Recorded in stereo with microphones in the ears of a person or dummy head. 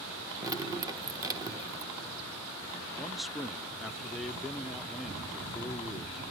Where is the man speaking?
Centre (ahead or behind), 0.5 m.